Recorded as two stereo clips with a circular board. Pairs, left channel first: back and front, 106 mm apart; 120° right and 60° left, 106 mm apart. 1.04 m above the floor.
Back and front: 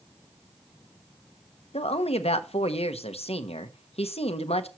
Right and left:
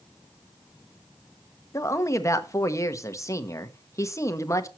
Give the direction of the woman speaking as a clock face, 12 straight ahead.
6 o'clock.